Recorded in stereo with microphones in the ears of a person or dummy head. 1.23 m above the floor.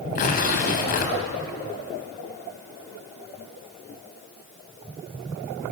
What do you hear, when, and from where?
0.1 s tearing paper: 45° left (ahead or behind), 4 m